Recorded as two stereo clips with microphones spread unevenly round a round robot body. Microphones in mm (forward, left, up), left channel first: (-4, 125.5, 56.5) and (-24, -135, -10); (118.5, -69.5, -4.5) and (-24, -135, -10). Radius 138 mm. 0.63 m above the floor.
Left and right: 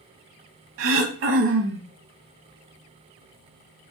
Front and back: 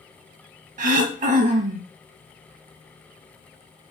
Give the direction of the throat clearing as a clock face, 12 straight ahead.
5 o'clock.